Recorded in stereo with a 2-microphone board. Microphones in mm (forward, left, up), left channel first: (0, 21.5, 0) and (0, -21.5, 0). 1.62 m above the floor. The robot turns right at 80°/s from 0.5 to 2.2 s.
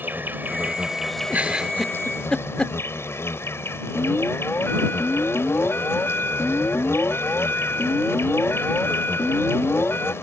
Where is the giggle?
40° right (ahead or behind); by 2.8 s 25° left (ahead or behind).